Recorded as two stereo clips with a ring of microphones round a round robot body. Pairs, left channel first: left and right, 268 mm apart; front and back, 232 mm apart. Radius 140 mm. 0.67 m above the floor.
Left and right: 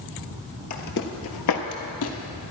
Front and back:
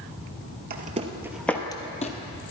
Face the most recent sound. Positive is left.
turn(degrees=55)